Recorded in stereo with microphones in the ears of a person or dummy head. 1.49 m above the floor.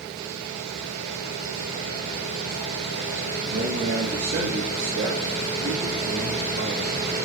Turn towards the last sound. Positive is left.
turn(degrees=-60)  # may be behind; listen again after turning